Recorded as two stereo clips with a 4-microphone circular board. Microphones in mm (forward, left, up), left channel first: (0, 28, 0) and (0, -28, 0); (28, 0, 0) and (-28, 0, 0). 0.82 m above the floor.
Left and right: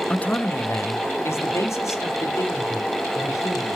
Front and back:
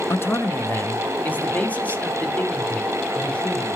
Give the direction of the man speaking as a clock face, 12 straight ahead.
11 o'clock.